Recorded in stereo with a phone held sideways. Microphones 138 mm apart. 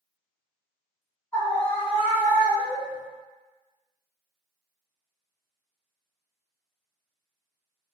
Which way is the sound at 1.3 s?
20° left (ahead or behind).